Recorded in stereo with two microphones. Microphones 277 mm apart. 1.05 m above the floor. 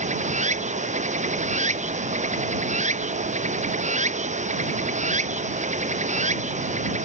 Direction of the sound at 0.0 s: 25° right (ahead or behind).